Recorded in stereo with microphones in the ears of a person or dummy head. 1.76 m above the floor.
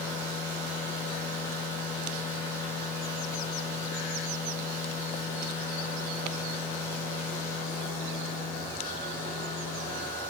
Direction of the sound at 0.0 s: 20° left (ahead or behind).